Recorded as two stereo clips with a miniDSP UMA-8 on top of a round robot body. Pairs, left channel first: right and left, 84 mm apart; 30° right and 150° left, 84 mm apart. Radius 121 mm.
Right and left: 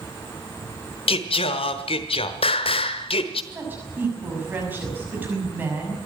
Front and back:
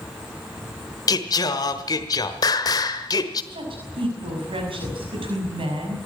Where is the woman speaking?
160° left, 6 m.